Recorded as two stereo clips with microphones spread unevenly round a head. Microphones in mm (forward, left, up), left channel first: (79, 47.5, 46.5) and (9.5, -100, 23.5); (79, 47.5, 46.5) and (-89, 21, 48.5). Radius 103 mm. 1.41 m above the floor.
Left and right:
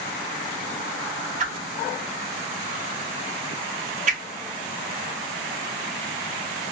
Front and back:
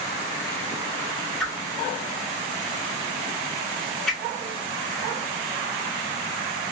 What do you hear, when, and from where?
1.4 s a whoosh: 80° right, 0.6 m